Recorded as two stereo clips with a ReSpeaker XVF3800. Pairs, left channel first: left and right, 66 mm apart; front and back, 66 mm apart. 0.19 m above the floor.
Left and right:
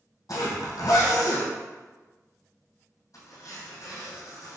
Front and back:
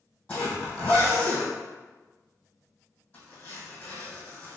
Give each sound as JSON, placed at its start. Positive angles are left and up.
{"t": 0.3, "sound": "a zipper", "azimuth_deg": 70, "distance_m": 1.6}